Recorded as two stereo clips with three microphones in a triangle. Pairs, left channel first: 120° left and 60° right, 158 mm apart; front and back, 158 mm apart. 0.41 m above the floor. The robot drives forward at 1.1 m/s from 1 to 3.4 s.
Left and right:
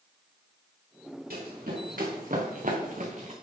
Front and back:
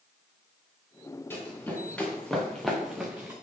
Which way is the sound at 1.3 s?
75° right.